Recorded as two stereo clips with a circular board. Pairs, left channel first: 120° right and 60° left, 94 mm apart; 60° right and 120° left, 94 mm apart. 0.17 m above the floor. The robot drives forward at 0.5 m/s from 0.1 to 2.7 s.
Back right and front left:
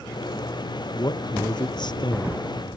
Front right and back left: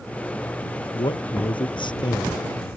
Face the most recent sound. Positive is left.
turn(degrees=-95)